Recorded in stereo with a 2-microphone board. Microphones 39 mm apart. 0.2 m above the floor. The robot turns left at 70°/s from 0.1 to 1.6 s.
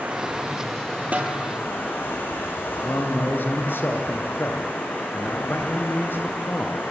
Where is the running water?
140° right, 5.5 m; by 6.9 s 115° left, 5.5 m.